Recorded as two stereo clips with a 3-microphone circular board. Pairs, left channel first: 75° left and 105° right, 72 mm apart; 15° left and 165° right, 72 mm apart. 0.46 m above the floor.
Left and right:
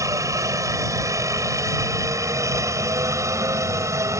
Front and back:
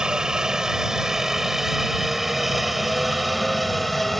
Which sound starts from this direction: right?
A helicopter, at 0.0 s.